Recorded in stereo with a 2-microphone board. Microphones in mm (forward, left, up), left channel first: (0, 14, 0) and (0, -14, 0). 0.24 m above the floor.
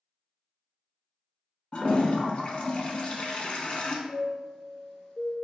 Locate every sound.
1.7 s a toilet flushing: 40° left (ahead or behind), 0.7 m
4.1 s a chime: 35° left (ahead or behind), 1.9 m